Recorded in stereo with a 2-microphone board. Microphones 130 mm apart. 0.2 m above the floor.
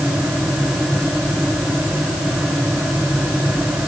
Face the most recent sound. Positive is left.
No sound to turn to.